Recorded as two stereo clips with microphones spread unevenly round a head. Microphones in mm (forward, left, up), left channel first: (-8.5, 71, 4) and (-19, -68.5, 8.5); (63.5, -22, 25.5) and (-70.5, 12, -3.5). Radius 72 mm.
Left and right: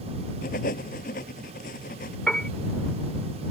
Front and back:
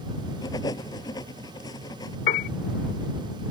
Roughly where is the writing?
Ahead left.